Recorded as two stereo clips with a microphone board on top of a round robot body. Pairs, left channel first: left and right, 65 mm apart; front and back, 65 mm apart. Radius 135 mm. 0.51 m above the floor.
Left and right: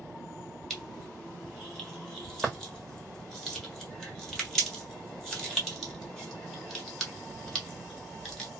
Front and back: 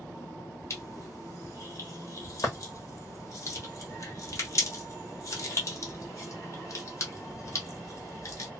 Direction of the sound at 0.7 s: 5° left.